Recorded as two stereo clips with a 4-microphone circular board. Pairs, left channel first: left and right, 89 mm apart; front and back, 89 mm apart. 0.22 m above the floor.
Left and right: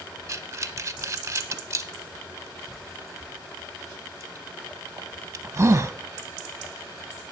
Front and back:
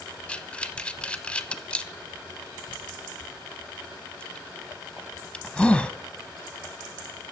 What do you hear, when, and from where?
0.3 s breathing: 70° right, 0.7 m